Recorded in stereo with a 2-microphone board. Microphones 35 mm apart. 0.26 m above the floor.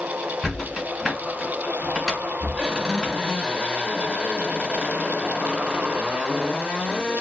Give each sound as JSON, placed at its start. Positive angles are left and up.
{"t": 0.4, "sound": "a squeak", "side_deg": 10, "distance_m": 1.5}